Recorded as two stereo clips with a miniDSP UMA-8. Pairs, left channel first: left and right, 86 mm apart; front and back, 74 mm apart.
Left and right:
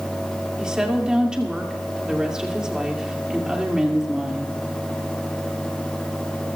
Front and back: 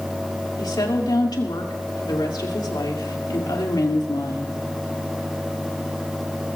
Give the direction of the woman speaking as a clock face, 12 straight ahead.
12 o'clock.